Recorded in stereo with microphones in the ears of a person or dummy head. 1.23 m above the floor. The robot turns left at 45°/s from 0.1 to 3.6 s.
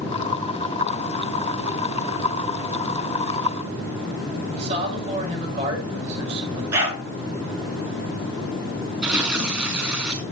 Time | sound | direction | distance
4.5 | a man speaking | 30° right (ahead or behind) | 6.5 m
6.7 | a dog barking | 10° right (ahead or behind) | 6.5 m
9.0 | tearing paper | 20° right (ahead or behind) | 1.9 m